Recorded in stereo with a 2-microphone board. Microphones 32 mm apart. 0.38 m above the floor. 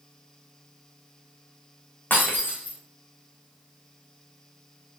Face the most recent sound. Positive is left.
turn(degrees=70)  # may be behind; listen again after turning